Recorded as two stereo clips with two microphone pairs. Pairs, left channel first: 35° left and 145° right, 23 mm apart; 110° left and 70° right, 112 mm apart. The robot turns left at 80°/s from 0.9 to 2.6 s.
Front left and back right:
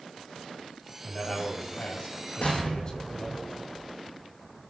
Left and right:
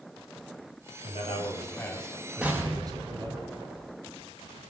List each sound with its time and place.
1.0 s a man speaking: 105° left, 4.5 m; by 3.4 s 20° right, 4.5 m
2.4 s an explosion: 10° left, 4 m; by 3.9 s 5° right, 4 m